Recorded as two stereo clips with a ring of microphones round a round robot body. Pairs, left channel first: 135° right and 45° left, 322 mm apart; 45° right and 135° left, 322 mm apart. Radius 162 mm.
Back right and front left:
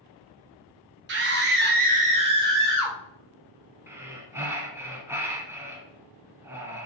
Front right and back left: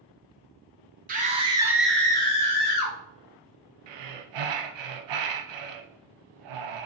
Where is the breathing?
130° left, 0.7 m.